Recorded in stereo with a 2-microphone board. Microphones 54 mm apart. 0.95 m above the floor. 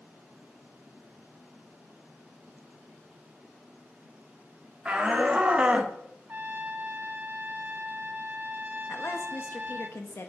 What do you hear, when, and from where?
4.8 s a shout: 20° right (ahead or behind), 2.5 m; by 6.0 s 25° right (ahead or behind), 1.0 m
6.3 s a trumpet: 35° right (ahead or behind), 0.9 m
8.9 s a woman speaking: 50° left (ahead or behind), 1.4 m